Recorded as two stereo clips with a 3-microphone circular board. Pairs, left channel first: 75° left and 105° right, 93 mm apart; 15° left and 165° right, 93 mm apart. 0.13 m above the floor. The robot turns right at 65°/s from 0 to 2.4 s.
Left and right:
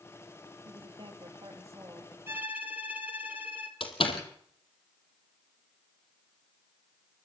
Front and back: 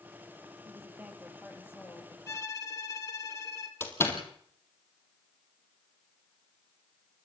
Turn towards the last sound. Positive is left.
turn(degrees=75)